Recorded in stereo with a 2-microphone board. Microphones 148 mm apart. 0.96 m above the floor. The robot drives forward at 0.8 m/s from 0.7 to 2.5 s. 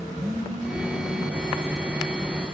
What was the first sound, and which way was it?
A phone buzzing, 40° right (ahead or behind).